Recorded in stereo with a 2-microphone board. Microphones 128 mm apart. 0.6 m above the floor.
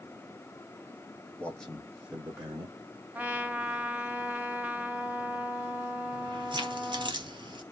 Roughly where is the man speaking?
Centre.